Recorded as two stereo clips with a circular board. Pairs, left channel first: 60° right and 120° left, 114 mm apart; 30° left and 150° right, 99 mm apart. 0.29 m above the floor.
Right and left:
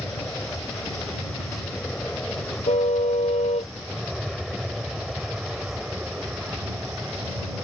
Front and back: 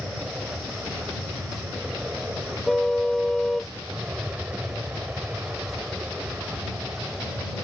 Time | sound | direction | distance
0.0 | an aircraft | 100° right | ?
2.7 | a car horn | 55° right | ?